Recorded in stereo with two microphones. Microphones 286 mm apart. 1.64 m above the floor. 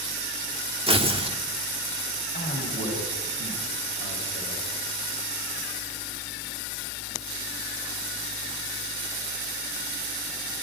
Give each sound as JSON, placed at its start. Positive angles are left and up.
{"t": 0.9, "sound": "tearing paper", "side_deg": -20, "distance_m": 1.8}
{"t": 2.3, "sound": "a man speaking", "side_deg": 30, "distance_m": 9.5}